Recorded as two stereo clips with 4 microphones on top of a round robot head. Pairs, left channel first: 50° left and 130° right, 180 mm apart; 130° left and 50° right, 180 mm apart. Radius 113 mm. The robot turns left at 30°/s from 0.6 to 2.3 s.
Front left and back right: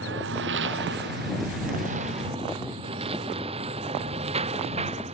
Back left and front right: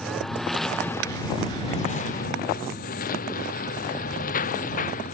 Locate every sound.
0.0 s a lawn mower: 145° right; by 5.1 s 175° left